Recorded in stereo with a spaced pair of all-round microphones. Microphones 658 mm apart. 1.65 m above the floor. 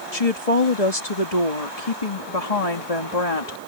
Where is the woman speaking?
55° left (ahead or behind).